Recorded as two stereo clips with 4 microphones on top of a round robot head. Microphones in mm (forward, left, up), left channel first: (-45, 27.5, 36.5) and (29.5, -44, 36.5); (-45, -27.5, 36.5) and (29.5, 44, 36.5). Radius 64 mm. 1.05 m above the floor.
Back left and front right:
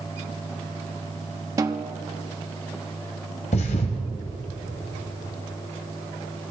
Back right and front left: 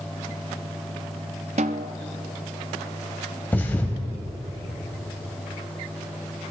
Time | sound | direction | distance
1.6 | a snare drum | 15° left | 0.6 m
3.5 | a thud | 150° left | 1.7 m